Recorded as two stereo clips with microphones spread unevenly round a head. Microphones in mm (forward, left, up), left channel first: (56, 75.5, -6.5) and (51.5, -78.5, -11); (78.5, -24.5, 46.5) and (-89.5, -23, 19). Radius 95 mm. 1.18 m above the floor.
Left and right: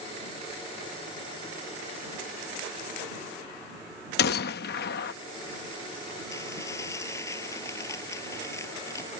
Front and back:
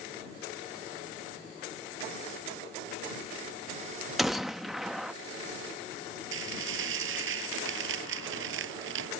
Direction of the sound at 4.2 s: 85° left.